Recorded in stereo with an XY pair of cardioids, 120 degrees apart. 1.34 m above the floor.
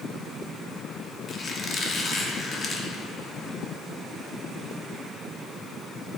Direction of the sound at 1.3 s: 35° left.